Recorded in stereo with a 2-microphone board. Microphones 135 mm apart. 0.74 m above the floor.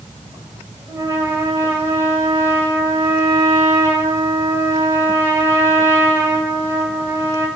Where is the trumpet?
20° right (ahead or behind), 4.5 m.